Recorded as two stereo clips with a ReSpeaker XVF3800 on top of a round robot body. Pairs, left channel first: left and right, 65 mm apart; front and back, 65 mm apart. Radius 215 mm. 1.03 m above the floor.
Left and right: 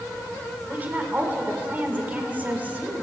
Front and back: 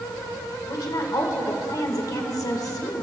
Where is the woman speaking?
25° right, 1.9 m.